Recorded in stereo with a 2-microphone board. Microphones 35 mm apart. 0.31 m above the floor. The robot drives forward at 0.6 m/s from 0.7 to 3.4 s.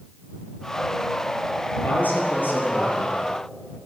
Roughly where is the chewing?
No chewing in this recording.